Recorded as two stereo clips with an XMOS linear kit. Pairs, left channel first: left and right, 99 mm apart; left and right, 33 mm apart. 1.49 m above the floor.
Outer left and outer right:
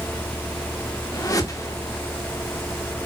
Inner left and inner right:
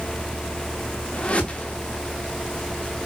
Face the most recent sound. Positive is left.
turn(degrees=35)  # may be behind; listen again after turning